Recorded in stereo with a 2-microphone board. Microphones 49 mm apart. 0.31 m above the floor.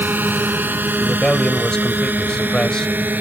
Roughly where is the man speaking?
Centre.